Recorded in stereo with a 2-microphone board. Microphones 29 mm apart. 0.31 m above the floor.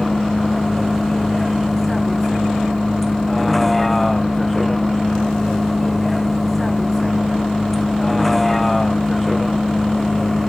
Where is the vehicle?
5° left (ahead or behind).